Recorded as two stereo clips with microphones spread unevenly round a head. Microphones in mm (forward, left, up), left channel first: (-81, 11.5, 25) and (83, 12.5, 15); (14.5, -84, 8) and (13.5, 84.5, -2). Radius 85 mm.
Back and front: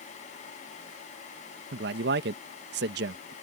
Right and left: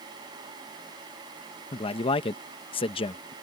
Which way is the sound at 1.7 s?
30° right.